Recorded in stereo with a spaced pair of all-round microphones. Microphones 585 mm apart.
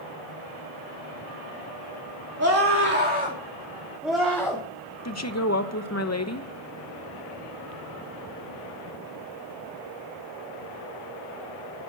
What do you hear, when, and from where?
2.4 s a scream: 25° right (ahead or behind), 3 m; by 4.6 s 5° left (ahead or behind), 3 m
5.0 s a woman speaking: 25° left (ahead or behind), 1.1 m